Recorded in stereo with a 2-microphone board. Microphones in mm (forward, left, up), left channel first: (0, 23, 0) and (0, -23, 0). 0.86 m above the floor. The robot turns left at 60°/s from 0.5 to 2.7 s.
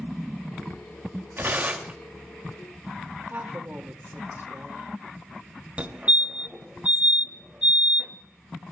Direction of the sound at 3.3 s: 45° right (ahead or behind).